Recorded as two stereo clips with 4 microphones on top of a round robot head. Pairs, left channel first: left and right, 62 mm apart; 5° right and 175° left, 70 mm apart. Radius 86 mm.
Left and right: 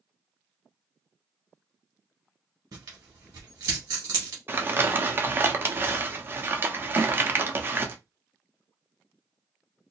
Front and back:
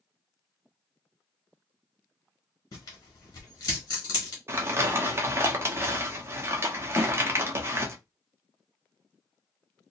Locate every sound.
2.7 s tearing paper: 55° right, 1.2 m
4.5 s crumpling: 140° right, 0.7 m
7.0 s a snare drum: 110° right, 1.2 m